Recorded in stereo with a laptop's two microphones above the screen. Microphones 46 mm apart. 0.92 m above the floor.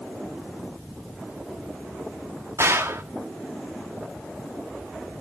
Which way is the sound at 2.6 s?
65° right (ahead or behind).